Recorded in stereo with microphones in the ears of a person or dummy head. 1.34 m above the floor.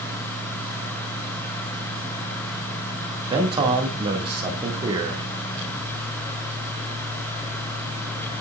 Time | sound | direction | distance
3.3 | a man speaking | 25° right (ahead or behind) | 2.0 m